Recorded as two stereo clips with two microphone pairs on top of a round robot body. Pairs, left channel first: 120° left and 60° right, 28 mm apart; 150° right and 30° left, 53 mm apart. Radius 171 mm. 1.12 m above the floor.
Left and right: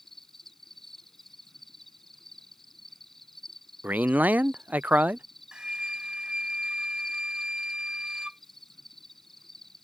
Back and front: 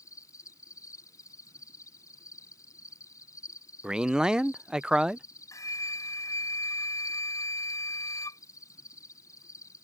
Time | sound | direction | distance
0.0 | an insect | 160° right | ?
3.8 | a man speaking | 50° right | ?
5.5 | a flute | 125° right | ?